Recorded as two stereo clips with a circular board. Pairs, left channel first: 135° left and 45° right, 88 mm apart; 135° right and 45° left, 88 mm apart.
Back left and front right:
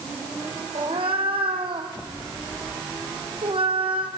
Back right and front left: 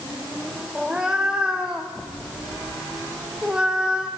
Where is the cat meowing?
35° right, 1.8 m.